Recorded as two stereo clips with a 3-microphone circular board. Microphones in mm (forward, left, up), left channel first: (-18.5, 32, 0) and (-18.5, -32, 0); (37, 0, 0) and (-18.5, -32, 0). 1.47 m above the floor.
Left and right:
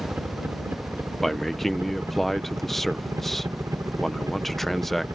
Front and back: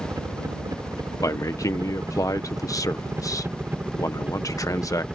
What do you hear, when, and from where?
0.0 s a helicopter: 150° right; by 5.2 s 75° right
1.2 s a man speaking: 5° left